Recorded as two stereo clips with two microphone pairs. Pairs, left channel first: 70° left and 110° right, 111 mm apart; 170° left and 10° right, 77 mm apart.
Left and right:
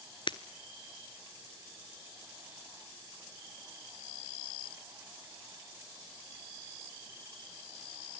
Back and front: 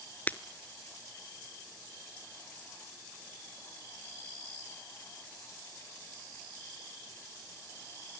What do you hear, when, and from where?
0.3 s breaking glass: 110° left, 0.9 m